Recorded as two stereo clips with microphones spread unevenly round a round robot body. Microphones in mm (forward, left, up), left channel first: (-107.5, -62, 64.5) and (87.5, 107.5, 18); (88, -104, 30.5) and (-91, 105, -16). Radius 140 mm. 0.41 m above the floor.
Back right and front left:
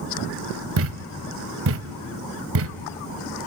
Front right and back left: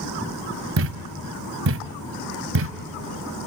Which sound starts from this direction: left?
A thud, at 0.8 s.